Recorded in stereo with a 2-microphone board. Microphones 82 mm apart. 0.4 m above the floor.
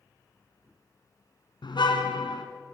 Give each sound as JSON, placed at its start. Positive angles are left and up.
{"t": 1.6, "sound": "a car horn", "side_deg": 70, "distance_m": 2.5}